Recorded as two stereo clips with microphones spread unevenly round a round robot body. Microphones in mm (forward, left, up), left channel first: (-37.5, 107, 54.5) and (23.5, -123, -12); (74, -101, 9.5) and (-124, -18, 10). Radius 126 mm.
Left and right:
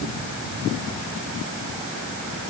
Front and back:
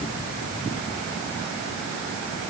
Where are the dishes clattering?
I don't hear dishes clattering.